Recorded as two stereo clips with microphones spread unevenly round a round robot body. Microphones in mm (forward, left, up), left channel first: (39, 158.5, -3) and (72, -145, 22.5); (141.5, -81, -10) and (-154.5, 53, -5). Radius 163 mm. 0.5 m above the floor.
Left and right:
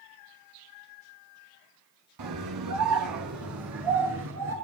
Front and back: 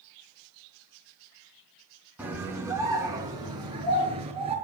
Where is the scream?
120° right, 5 m; by 4.5 s 130° right, 5.5 m.